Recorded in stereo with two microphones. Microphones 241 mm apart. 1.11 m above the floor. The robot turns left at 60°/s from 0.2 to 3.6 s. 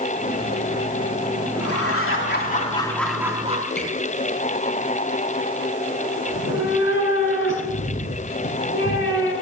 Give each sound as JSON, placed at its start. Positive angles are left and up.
{"t": 1.6, "sound": "laughter", "azimuth_deg": 90, "distance_m": 2.5}
{"t": 3.8, "sound": "a squeak", "side_deg": 45, "distance_m": 6.0}
{"t": 6.3, "sound": "a cat meowing", "side_deg": 55, "distance_m": 6.0}